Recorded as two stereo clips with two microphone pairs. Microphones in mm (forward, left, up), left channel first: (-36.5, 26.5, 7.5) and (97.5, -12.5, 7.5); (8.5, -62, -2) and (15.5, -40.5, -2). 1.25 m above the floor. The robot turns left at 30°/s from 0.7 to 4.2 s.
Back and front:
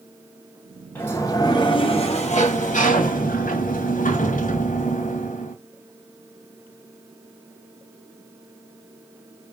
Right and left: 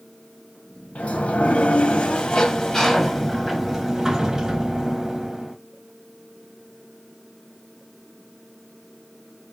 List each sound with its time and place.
0.9 s a sliding door: 120° right, 0.7 m; by 5.5 s 145° left, 0.7 m